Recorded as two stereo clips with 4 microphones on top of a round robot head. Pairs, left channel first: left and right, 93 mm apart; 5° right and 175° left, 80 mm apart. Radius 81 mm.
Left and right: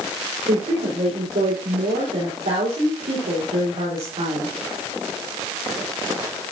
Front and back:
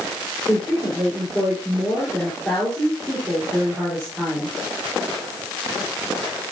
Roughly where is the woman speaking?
Right.